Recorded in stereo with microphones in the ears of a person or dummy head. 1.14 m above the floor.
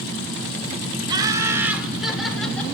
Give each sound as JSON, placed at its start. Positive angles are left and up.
{"t": 1.1, "sound": "laughter", "side_deg": -25, "distance_m": 1.6}